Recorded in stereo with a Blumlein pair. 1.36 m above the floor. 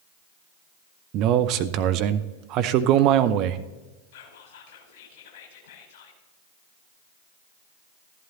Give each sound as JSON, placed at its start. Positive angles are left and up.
{"t": 1.1, "sound": "a man speaking", "azimuth_deg": -40, "distance_m": 0.9}
{"t": 4.1, "sound": "whispering", "azimuth_deg": 45, "distance_m": 4.5}